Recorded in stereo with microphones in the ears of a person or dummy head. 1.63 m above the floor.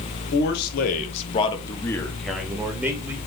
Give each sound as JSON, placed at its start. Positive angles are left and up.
{"t": 0.3, "sound": "a man speaking", "side_deg": 65, "distance_m": 1.2}